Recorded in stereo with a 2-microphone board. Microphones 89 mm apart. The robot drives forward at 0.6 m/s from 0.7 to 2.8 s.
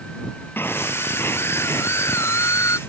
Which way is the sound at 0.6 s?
25° left (ahead or behind).